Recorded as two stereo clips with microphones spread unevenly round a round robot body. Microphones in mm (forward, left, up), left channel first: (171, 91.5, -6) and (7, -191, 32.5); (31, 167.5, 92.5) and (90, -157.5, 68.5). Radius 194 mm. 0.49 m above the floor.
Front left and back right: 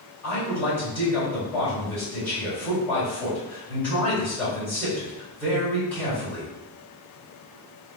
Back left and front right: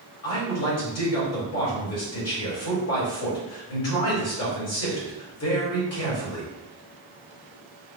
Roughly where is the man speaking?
Behind left.